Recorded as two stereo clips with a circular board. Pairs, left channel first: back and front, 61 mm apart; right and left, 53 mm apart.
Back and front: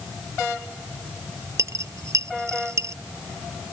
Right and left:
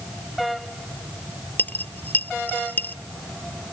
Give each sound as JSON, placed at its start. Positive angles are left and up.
{"t": 1.6, "sound": "a dropped coin", "azimuth_deg": -35}